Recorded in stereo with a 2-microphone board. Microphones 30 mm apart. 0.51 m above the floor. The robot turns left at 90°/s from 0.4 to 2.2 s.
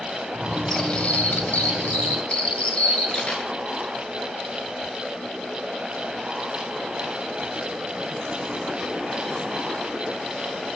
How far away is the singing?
No singing in this recording.